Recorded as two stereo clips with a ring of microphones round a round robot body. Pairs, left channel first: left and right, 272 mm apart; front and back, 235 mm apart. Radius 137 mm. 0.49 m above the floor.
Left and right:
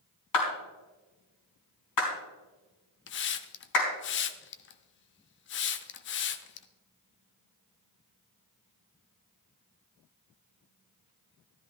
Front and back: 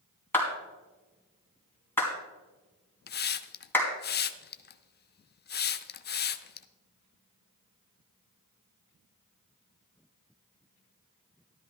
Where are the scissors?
No scissors in this recording.